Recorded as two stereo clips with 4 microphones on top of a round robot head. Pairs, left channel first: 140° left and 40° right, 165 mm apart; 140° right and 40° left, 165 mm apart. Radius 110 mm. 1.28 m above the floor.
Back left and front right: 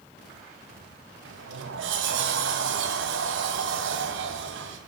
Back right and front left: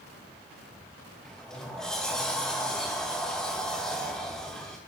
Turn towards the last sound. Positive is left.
turn(degrees=-50)